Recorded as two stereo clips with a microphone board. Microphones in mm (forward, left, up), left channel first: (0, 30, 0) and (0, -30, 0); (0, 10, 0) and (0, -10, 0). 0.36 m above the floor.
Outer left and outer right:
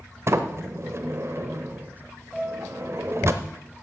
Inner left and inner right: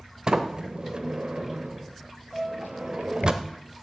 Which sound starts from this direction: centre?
A piano, at 2.3 s.